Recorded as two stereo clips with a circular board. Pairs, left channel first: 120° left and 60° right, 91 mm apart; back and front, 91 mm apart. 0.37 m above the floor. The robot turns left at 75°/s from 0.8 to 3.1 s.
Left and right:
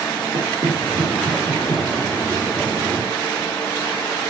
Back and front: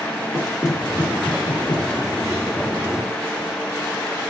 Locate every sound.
0.3 s knocking: 80° right, 5 m; by 2.9 s 115° left, 5 m